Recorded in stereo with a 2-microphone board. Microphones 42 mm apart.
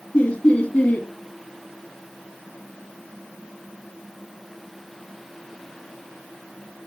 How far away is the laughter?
About 4.5 m.